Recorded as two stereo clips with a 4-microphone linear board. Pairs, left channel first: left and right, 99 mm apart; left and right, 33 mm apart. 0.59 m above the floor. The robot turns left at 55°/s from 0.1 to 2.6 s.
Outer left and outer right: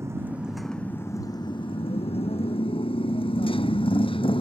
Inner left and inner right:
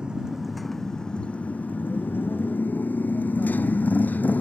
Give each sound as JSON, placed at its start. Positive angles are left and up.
{"t": 0.0, "sound": "a motorcycle", "side_deg": -25}